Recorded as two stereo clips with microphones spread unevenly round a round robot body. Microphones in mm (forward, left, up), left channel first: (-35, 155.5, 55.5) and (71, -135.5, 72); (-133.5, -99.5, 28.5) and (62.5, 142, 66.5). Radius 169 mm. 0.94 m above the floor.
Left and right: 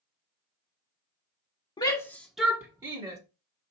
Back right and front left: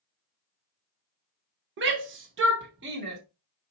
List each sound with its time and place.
1.8 s a shout: 60° left, 0.9 m; by 3.2 s straight ahead, 1.2 m